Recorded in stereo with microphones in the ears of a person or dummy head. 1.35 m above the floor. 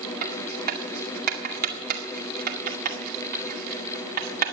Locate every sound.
0.2 s writing: 50° right (ahead or behind), 2 m